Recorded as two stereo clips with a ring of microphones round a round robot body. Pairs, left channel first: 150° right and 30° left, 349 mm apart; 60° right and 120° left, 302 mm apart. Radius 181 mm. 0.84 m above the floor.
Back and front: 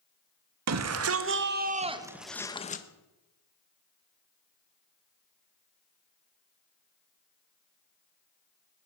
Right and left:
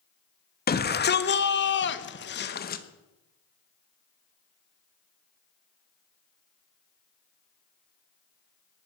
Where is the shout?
5° right, 1.7 m; by 2.8 s 105° right, 1.1 m.